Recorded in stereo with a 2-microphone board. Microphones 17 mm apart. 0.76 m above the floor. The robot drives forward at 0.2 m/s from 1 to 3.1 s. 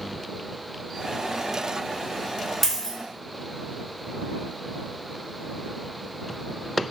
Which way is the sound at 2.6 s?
15° left (ahead or behind).